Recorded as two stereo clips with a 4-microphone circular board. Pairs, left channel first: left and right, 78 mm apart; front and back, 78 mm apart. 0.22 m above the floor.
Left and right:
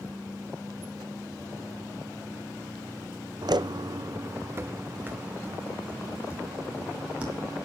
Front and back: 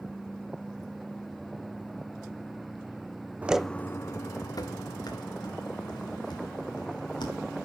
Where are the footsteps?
110° right, 0.6 m; by 7.7 s 15° right, 5 m.